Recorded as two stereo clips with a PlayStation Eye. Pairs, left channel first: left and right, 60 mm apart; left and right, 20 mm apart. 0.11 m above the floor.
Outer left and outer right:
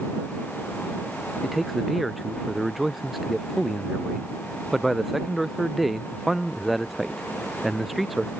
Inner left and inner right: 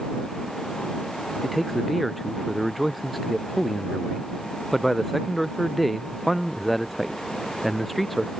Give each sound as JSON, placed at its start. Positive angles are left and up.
{"t": 1.4, "sound": "a man speaking", "side_deg": 0}